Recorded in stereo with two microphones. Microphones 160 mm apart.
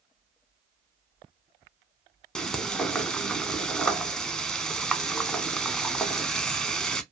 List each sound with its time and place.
2.4 s frying: 5° left (ahead or behind), 0.6 m